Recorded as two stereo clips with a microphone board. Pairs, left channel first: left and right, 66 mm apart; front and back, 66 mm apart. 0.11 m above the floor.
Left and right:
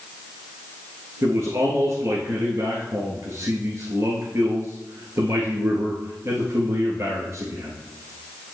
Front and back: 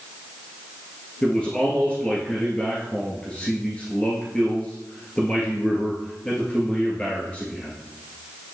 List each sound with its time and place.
1.2 s a man speaking: 70° right, 1.7 m